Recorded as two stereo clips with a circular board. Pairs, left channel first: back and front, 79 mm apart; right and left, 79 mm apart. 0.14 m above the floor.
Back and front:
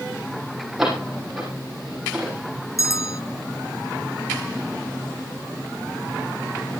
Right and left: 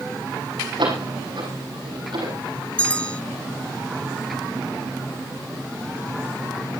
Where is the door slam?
85° left, 6 m.